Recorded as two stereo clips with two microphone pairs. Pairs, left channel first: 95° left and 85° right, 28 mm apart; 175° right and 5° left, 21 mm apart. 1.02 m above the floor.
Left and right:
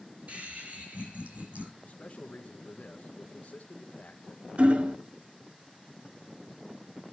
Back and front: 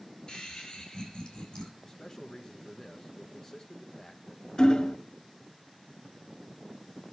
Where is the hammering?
125° right, 0.6 m.